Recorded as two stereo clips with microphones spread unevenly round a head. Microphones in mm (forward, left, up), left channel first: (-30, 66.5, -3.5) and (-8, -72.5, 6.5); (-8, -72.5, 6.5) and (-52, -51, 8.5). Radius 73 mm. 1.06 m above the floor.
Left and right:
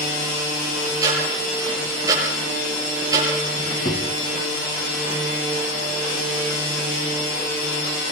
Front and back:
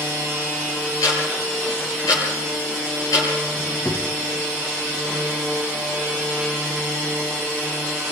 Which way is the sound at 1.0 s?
10° right.